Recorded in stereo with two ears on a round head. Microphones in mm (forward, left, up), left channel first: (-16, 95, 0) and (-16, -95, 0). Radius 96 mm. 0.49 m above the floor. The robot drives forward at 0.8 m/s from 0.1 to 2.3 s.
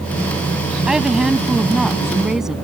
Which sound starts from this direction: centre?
A woman speaking, at 0.9 s.